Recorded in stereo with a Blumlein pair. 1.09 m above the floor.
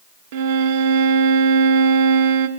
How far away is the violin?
About 0.6 m.